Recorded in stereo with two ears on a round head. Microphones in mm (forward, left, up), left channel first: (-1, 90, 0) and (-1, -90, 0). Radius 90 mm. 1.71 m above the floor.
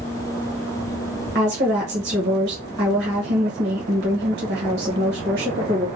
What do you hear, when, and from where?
1.4 s a woman speaking: 55° right (ahead or behind), 1.4 m